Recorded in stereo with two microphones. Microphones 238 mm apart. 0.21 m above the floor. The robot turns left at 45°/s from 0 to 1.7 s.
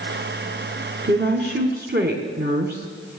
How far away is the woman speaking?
About 2 m.